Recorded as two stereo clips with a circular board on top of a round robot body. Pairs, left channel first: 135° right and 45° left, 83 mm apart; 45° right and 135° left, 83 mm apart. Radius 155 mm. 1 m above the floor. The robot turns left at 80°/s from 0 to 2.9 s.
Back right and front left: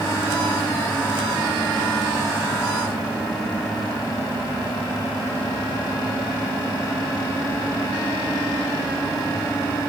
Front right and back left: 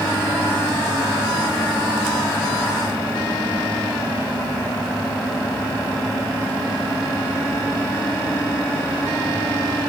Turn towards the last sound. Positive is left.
No sound to turn to.